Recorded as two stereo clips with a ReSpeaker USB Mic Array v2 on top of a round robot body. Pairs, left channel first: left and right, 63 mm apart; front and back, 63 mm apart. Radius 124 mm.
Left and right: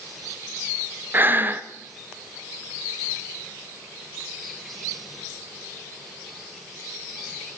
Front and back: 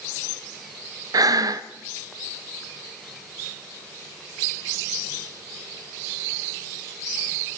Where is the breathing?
150° right, 0.8 m.